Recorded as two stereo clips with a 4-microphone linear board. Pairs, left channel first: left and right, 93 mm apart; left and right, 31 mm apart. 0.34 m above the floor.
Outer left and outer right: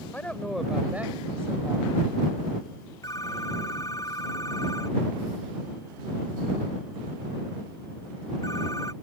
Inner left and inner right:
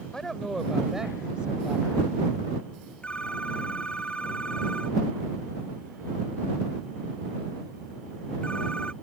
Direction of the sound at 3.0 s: 35° left (ahead or behind).